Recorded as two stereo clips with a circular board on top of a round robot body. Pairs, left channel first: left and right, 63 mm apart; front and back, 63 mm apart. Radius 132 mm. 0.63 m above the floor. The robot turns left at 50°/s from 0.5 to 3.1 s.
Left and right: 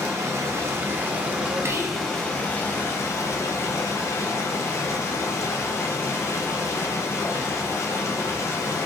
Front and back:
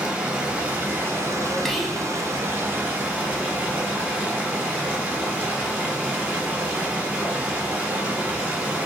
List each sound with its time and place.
0.0 s running water: 110° right, 1.1 m; by 8.9 s 120° left, 1.1 m
1.6 s whispering: 80° right, 0.7 m; by 2.0 s 100° right, 0.7 m